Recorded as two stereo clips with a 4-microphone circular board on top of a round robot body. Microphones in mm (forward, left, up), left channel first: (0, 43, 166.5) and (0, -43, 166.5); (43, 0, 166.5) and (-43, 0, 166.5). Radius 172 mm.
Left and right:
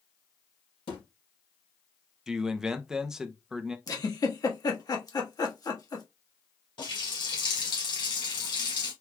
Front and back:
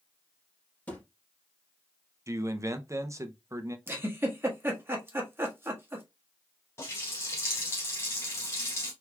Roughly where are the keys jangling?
No keys jangling in this recording.